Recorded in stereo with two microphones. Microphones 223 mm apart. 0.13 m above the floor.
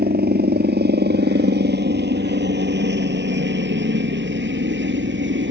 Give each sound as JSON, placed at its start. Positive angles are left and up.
{"t": 0.0, "sound": "a helicopter", "side_deg": -45}